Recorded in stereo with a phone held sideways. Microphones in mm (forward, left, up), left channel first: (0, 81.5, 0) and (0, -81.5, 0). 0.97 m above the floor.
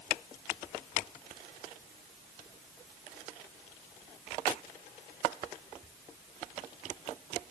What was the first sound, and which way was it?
Only background noise.